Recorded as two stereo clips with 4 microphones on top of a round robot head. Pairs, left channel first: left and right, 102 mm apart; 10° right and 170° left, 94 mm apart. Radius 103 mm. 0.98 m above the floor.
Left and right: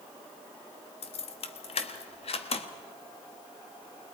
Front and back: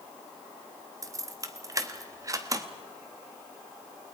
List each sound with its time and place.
1.0 s keys jangling: 115° left, 1.3 m